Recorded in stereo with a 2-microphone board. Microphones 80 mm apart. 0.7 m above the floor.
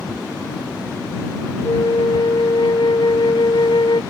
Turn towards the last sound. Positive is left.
turn(degrees=80)